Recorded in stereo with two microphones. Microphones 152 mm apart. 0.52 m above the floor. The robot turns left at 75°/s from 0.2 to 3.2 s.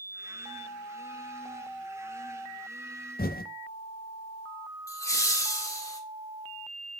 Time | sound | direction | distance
3.2 | typing on a keyboard | 80° left | 0.6 m
4.9 | laughter | 20° left (ahead or behind) | 1.0 m